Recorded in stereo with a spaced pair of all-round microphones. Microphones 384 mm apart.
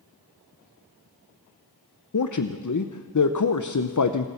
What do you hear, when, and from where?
2.1 s a man speaking: 50° left (ahead or behind), 0.7 m